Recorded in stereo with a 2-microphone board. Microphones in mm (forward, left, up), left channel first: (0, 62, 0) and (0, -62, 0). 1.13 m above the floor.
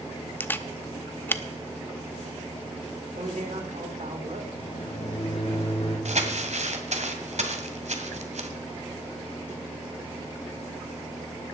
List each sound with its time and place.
0.4 s a camera shutter: 15° left (ahead or behind), 0.8 m
3.2 s a man speaking: 80° right, 3 m
4.6 s a microwave: 55° left (ahead or behind), 4.5 m
6.0 s crumpling: 65° right (ahead or behind), 2.0 m